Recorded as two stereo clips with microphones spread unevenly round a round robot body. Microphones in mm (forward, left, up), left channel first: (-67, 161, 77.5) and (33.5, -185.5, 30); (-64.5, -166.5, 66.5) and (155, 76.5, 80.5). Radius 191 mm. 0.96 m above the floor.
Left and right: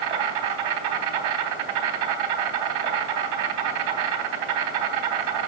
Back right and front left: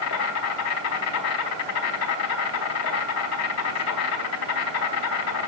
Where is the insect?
85° right, 1.1 m.